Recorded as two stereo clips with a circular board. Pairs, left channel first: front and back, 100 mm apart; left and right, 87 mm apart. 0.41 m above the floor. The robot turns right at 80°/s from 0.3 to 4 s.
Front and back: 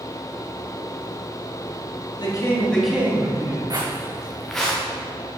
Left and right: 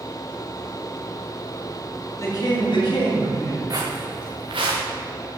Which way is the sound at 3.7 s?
135° right.